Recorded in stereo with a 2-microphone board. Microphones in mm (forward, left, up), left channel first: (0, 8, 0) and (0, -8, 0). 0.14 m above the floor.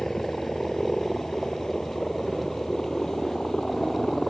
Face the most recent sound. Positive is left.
turn(degrees=35)  # may be behind; listen again after turning